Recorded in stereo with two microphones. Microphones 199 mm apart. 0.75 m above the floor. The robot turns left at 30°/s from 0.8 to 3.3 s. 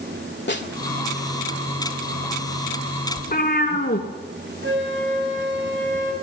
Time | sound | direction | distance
0.5 | a snare drum | 60° left (ahead or behind) | 2.0 m
3.2 | a cat meowing | 50° left (ahead or behind) | 3 m
4.6 | a flute | 80° right | 6 m